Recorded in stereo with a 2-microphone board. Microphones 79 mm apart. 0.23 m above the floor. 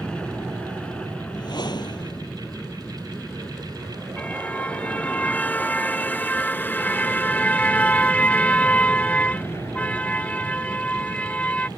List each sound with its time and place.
0.0 s an aircraft: 10° left (ahead or behind); by 11.8 s 35° left (ahead or behind)
1.3 s a whoosh: 70° left (ahead or behind)
4.2 s a car horn: 15° left (ahead or behind)